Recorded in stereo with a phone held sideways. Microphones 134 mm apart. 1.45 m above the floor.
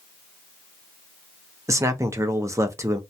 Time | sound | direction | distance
1.7 | a man speaking | 25° right (ahead or behind) | 0.5 m